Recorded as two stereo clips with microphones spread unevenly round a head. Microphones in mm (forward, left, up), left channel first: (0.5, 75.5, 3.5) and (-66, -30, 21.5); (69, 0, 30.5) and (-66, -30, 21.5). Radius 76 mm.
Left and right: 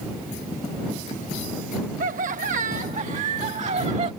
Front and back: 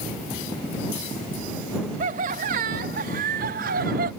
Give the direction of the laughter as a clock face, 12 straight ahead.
5 o'clock.